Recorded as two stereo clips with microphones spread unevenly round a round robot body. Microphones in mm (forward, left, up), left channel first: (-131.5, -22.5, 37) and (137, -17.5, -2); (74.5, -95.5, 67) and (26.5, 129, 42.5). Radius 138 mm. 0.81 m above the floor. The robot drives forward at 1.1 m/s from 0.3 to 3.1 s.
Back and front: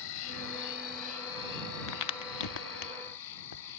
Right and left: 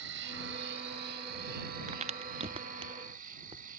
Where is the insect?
150° left; by 3.8 s 165° left.